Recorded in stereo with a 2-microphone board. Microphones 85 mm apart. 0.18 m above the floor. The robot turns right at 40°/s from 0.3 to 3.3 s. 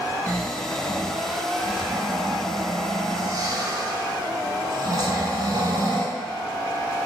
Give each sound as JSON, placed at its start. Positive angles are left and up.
{"t": 0.3, "sound": "snoring", "azimuth_deg": 145, "distance_m": 0.6}